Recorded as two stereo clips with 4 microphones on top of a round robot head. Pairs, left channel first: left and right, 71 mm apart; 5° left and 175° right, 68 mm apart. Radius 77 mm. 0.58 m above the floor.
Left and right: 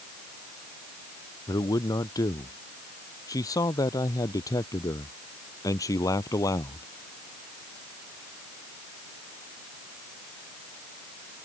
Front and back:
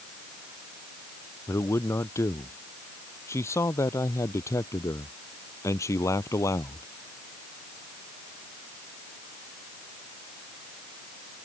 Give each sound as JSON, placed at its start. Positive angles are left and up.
{"t": 1.5, "sound": "a man speaking", "azimuth_deg": 55}